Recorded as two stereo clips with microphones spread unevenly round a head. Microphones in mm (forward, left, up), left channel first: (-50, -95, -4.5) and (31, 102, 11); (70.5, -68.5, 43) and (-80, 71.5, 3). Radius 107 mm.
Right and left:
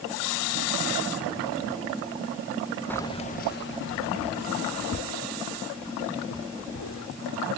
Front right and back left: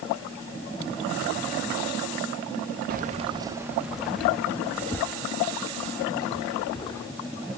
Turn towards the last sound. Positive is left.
turn(degrees=-110)